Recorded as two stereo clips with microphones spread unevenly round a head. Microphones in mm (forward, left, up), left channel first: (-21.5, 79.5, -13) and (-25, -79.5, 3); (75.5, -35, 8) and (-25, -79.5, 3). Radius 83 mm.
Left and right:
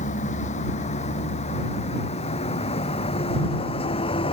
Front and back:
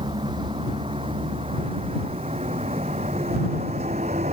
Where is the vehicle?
135° left; by 4.3 s 145° left.